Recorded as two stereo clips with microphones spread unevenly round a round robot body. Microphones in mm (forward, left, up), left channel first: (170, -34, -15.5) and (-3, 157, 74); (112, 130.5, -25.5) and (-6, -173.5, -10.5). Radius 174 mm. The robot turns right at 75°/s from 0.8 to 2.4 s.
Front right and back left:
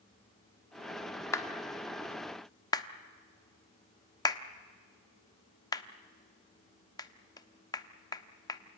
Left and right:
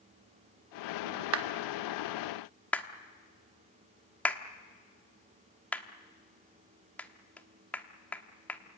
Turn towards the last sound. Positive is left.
turn(degrees=-10)